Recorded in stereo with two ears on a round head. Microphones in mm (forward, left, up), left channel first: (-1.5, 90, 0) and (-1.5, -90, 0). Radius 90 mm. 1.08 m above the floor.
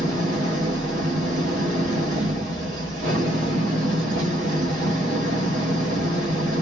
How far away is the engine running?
About 1.4 m.